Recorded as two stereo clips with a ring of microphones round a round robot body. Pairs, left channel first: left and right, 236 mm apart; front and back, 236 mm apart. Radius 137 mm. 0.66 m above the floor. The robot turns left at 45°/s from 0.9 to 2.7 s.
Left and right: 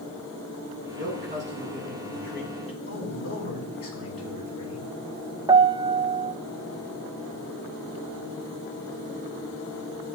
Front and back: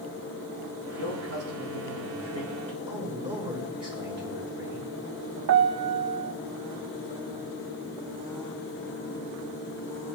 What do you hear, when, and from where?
1.0 s a man speaking: 130° right, 8.5 m; by 2.8 s 155° left, 8.5 m
2.9 s a man speaking: 110° left, 7.5 m
5.5 s a piano: 160° right, 0.6 m